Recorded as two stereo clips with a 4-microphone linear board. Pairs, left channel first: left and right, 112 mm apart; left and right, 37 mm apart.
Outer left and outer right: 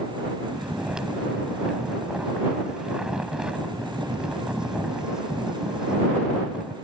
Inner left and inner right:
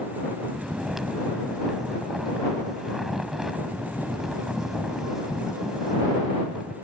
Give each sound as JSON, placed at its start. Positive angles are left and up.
{"t": 0.4, "sound": "snoring", "side_deg": -5}